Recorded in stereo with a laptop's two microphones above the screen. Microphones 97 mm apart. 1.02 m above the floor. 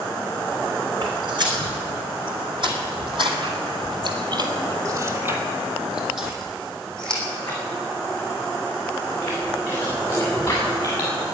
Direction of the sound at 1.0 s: 50° right (ahead or behind).